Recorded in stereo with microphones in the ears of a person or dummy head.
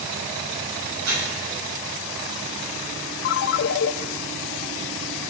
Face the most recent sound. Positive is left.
turn(degrees=50)  # may be behind; listen again after turning